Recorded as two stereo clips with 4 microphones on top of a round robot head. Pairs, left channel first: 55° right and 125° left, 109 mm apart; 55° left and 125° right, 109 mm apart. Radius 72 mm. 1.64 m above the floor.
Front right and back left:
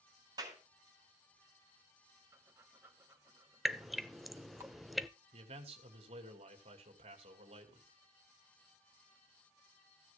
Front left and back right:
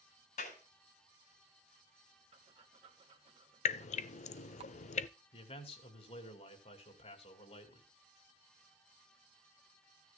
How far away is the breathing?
About 1.7 m.